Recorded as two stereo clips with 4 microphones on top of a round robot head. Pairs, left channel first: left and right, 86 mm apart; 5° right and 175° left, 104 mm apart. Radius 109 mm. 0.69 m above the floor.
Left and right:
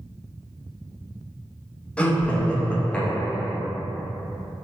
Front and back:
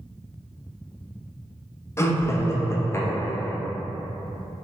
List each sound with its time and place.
2.0 s laughter: 25° left, 0.7 m